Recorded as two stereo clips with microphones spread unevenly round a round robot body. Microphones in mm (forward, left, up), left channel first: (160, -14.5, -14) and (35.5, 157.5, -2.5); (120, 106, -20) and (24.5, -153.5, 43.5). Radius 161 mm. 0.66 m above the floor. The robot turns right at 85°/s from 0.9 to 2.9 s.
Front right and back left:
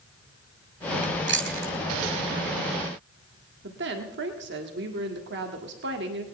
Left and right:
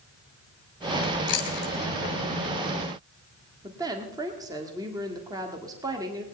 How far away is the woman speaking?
About 1.6 m.